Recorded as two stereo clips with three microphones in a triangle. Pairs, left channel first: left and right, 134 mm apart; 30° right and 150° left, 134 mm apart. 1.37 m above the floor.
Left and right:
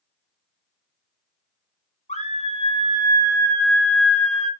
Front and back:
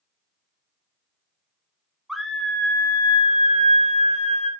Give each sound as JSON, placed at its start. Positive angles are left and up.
{"t": 2.1, "sound": "a scream", "azimuth_deg": 60, "distance_m": 1.2}